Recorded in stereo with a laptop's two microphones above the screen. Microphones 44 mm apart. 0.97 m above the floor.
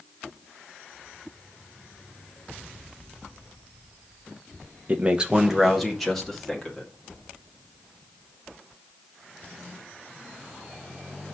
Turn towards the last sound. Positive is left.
turn(degrees=10)  # may be behind; listen again after turning